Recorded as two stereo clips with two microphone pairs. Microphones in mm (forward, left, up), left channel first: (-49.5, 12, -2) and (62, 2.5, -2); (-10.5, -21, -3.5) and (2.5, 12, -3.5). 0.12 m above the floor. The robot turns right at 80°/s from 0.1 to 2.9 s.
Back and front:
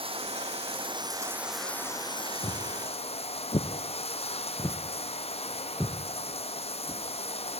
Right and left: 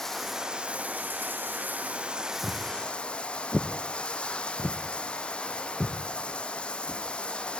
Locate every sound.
0.0 s running water: 35° right, 1.3 m; by 7.6 s 170° right, 1.3 m
2.4 s footsteps: 125° left, 1.9 m; by 7.0 s 55° left, 2.5 m